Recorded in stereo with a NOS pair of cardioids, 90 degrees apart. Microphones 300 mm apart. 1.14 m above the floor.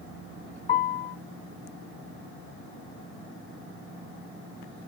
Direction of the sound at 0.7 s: 30° left.